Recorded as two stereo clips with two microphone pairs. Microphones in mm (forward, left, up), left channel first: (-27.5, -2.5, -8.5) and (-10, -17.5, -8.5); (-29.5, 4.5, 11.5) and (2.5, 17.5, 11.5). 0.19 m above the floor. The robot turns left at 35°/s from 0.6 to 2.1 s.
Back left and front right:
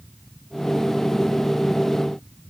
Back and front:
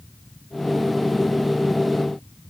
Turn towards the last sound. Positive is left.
No sound to turn to.